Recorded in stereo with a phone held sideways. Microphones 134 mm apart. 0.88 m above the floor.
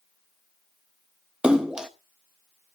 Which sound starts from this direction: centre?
A splash, at 1.4 s.